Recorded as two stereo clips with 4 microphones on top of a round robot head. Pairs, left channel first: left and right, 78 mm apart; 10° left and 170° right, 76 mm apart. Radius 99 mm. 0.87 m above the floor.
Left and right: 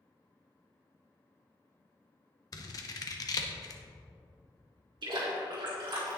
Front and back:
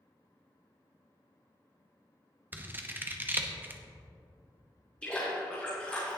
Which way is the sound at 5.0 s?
65° right.